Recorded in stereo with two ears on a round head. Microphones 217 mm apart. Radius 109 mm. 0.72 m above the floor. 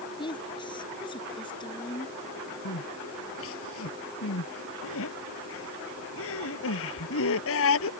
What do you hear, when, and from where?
0.2 s a woman speaking: 20° left (ahead or behind)
2.6 s crying: 70° left (ahead or behind)